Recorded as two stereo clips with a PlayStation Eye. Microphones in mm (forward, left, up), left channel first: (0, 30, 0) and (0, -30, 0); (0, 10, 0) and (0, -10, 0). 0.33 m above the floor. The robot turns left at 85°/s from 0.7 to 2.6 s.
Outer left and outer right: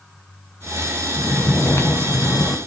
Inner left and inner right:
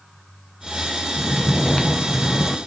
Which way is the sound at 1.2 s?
165° left.